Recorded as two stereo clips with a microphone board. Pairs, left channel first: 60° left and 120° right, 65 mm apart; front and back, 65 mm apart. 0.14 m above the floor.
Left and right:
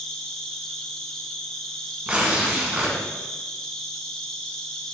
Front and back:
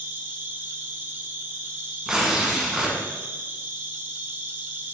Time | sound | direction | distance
0.0 | an insect | 135° left | 1.0 m
2.1 | tearing paper | 120° right | 1.5 m